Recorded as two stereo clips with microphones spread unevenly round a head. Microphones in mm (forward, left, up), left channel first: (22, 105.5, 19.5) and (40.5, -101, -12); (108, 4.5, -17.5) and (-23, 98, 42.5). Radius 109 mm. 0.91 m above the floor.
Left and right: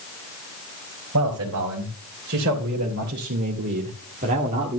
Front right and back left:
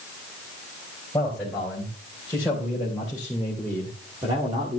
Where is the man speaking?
120° right, 4 m; by 4.8 s 145° right, 1.6 m.